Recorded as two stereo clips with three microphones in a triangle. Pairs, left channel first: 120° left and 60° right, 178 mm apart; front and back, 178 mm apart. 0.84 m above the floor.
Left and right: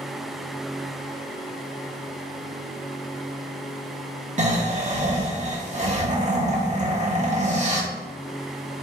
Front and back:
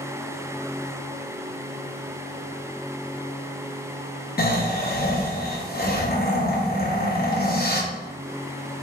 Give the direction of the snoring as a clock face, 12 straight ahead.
1 o'clock.